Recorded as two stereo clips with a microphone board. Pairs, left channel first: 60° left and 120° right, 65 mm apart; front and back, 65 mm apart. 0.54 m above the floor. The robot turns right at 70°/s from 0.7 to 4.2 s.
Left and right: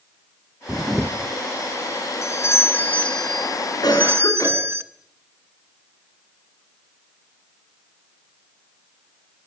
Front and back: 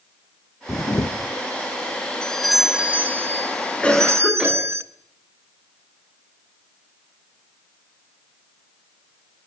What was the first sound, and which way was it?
A camera shutter, 50° right.